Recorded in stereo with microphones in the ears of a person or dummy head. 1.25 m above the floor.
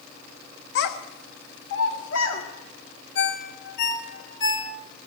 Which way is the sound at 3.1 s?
70° left (ahead or behind).